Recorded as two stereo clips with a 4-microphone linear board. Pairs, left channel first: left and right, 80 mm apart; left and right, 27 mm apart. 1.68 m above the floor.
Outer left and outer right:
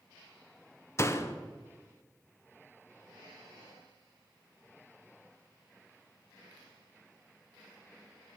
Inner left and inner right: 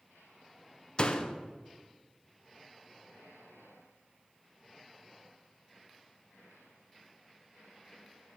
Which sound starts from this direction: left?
A door slam, at 1.0 s.